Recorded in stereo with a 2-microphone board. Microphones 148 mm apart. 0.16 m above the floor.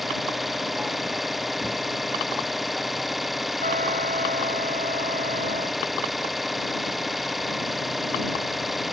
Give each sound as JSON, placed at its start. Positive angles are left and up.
{"t": 0.0, "sound": "an engine running", "side_deg": 0}
{"t": 3.6, "sound": "a trumpet", "side_deg": -65}